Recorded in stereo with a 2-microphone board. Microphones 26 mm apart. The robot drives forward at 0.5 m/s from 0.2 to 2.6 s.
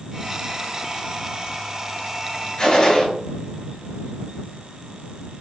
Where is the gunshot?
40° left (ahead or behind), 1.2 m.